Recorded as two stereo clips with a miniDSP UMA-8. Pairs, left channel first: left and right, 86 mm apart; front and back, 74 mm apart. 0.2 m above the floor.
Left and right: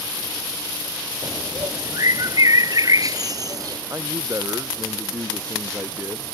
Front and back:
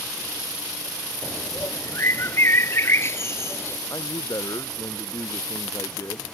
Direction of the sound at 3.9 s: 35° right.